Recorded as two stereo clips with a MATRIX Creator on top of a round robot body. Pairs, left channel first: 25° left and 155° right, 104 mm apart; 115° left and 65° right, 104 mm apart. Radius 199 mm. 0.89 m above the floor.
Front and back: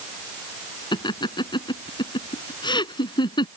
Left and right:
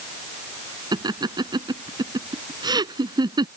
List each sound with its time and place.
0.9 s laughter: 20° right